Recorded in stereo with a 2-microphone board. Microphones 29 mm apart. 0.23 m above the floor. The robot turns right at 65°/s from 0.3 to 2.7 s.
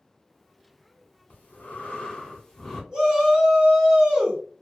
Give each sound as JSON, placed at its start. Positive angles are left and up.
{"t": 1.3, "sound": "breathing", "azimuth_deg": 80, "distance_m": 1.2}
{"t": 2.9, "sound": "a shout", "side_deg": -25, "distance_m": 2.0}